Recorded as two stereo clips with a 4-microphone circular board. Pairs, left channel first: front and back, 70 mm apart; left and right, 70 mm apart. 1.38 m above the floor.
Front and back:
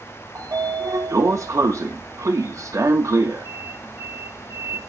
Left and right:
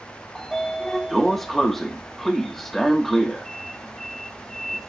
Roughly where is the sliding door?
Behind.